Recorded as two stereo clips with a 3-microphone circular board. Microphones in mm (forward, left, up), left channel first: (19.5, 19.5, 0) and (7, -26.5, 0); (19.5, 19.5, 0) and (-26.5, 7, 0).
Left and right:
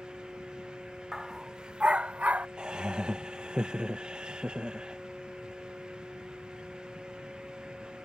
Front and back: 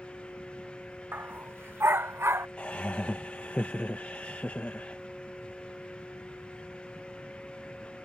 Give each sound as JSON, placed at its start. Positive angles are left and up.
{"t": 1.1, "sound": "a dog barking", "azimuth_deg": 175}
{"t": 2.6, "sound": "laughter", "azimuth_deg": -40}